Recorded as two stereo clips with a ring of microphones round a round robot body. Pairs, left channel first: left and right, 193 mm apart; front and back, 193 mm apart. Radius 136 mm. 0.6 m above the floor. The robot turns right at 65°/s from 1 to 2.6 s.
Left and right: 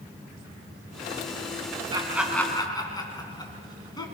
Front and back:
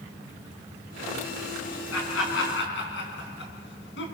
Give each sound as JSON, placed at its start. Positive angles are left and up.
{"t": 1.9, "sound": "laughter", "azimuth_deg": -25, "distance_m": 5.5}